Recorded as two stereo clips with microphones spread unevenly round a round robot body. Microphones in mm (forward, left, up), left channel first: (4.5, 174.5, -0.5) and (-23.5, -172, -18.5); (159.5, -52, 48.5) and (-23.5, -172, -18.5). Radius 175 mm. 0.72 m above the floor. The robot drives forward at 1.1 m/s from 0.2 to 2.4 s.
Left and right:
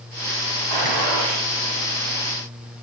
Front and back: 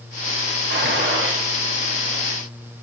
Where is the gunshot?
115° right, 6.5 m; by 1.5 s 120° right, 6.5 m.